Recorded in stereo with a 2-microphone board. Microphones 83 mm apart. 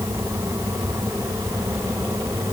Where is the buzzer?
I don't hear a buzzer.